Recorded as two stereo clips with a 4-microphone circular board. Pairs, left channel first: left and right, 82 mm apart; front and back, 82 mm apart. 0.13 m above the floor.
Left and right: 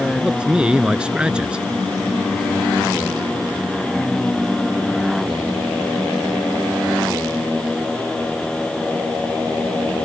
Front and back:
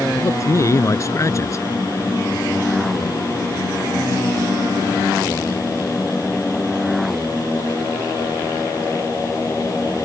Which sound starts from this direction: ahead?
A man speaking, at 0.1 s.